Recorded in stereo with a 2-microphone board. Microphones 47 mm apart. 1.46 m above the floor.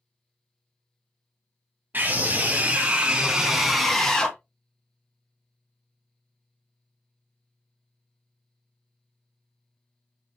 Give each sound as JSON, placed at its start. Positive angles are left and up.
{"t": 1.9, "sound": "a scream", "side_deg": -40, "distance_m": 1.9}